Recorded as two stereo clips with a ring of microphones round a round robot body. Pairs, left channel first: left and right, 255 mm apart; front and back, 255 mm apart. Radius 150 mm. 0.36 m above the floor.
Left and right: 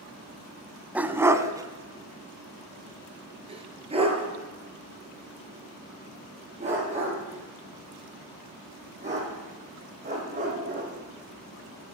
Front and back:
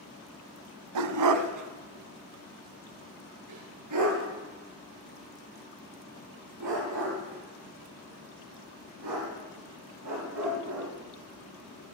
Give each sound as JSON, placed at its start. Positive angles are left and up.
{"t": 0.9, "sound": "a dog barking", "azimuth_deg": -175, "distance_m": 1.0}